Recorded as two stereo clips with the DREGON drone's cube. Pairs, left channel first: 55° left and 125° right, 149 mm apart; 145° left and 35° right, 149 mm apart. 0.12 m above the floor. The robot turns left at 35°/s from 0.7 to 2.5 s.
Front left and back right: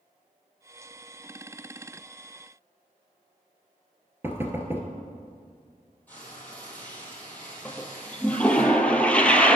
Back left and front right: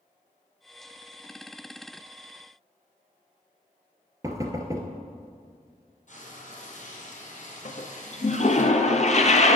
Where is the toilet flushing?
135° left, 0.7 m.